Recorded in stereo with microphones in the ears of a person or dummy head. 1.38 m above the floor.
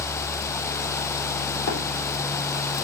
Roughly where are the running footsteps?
Left.